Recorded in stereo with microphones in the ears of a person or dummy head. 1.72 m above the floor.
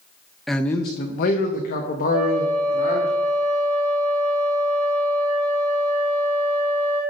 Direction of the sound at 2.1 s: 5° right (ahead or behind).